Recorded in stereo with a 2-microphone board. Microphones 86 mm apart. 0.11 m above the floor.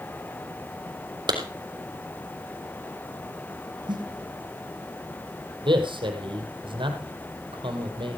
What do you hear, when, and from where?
1.3 s a clap: 60° right (ahead or behind), 3.5 m
3.9 s a snare drum: 60° right (ahead or behind), 3 m
5.7 s a man speaking: 70° right (ahead or behind), 3 m